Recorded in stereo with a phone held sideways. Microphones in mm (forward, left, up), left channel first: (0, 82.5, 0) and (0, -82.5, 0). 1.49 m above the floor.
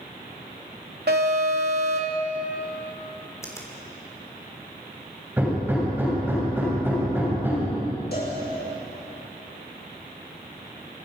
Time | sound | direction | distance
1.1 | an alarm | 80° right | 2.5 m
3.4 | a finger snap | 20° left (ahead or behind) | 3.5 m
5.4 | hammering | 10° right (ahead or behind) | 7.5 m
8.1 | a cowbell | 80° left | 6.5 m